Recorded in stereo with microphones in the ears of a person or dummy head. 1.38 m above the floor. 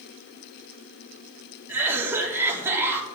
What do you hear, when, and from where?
1.7 s a cough: 15° right (ahead or behind), 2.5 m